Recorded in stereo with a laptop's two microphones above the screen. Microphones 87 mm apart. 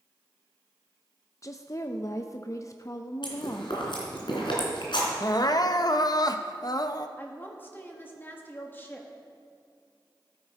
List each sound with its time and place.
1.4 s a woman speaking: 40° left (ahead or behind), 0.6 m
3.2 s chewing: 80° left, 3 m
5.2 s crying: 55° left (ahead or behind), 0.5 m
7.2 s a woman speaking: 25° left (ahead or behind), 1.2 m